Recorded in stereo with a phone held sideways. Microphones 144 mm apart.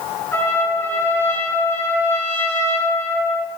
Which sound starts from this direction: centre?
A trumpet, at 0.3 s.